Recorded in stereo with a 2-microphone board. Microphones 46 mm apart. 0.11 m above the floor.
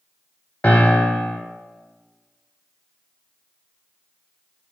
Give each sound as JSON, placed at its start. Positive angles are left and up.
{"t": 0.6, "sound": "a piano", "side_deg": 35, "distance_m": 0.7}